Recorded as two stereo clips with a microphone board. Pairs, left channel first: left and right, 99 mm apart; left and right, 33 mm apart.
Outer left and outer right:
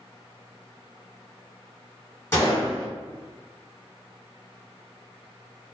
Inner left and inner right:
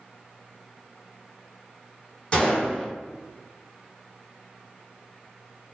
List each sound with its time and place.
2.3 s a gunshot: 25° left (ahead or behind), 1.4 m